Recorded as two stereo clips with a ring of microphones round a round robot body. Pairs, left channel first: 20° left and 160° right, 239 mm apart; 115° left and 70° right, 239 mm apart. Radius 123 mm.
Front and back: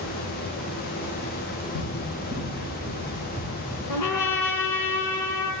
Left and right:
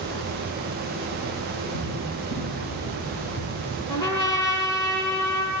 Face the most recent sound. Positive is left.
turn(degrees=40)